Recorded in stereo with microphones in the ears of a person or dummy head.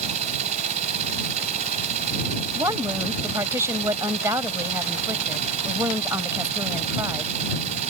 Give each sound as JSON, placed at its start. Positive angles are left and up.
{"t": 0.0, "sound": "a machine running", "side_deg": -40}
{"t": 2.5, "sound": "a woman speaking", "side_deg": -15}